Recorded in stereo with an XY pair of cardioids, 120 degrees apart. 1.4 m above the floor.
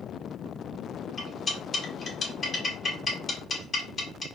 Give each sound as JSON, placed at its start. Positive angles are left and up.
{"t": 1.2, "sound": "cutlery clinking", "azimuth_deg": 30, "distance_m": 3.0}